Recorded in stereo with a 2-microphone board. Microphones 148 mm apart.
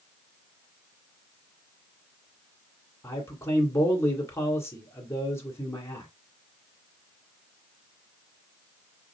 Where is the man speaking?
20° left (ahead or behind), 1.9 m.